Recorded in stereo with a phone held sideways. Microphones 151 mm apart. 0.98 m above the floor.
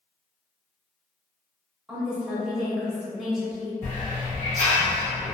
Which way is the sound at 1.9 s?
5° right (ahead or behind).